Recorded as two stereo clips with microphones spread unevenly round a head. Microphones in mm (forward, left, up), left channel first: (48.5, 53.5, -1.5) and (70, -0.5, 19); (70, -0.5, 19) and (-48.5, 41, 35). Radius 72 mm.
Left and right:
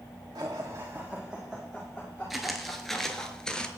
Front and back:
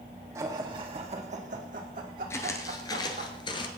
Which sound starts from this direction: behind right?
Laughter, at 0.3 s.